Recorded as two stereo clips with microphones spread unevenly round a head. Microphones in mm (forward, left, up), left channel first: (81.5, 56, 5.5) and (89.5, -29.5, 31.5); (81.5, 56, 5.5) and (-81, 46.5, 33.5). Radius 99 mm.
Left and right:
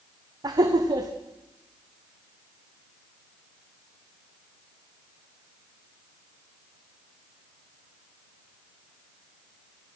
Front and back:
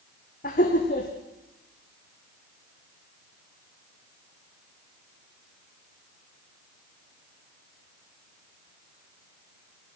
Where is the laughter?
50° right, 1.6 m.